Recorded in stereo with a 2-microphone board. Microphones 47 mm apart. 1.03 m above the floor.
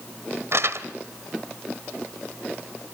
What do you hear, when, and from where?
0.5 s crumpling: 65° right (ahead or behind), 1.4 m